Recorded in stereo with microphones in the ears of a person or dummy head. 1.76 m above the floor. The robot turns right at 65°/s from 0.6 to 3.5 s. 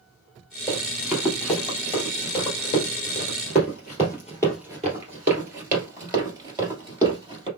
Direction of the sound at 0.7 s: 25° right (ahead or behind).